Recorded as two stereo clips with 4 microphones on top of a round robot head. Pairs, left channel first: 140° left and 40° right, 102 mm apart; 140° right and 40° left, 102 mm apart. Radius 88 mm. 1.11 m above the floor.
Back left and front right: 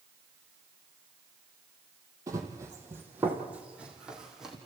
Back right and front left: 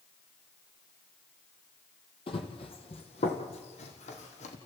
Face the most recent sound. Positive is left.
turn(degrees=-125)